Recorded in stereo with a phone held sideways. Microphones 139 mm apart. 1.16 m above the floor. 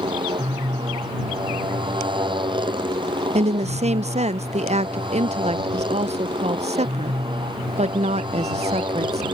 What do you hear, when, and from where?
0.0 s a motorcycle: 35° right (ahead or behind)
3.4 s a woman speaking: 55° right (ahead or behind)